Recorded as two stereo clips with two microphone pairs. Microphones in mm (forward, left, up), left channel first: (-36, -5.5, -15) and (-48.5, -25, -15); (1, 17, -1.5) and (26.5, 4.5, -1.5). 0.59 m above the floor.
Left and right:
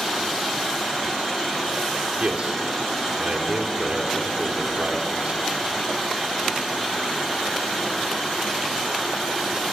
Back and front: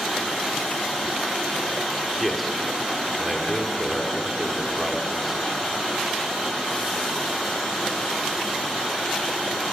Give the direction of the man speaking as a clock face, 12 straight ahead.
4 o'clock.